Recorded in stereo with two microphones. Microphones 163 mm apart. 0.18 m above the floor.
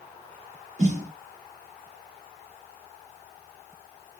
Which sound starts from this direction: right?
A snare drum, at 0.8 s.